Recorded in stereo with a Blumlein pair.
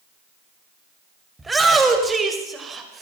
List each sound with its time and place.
1.4 s a shout: 10° right, 6 m; by 3.0 s 20° right, 5.5 m